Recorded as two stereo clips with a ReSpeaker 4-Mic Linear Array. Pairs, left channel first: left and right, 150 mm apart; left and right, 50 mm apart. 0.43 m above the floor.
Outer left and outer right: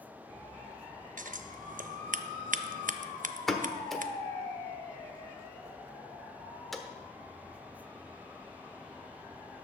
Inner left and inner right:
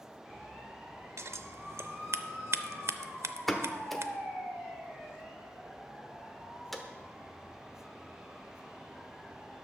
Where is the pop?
Centre (ahead or behind), 1.0 m.